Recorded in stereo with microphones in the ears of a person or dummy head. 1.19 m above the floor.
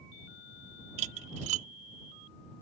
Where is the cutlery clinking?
40° right (ahead or behind).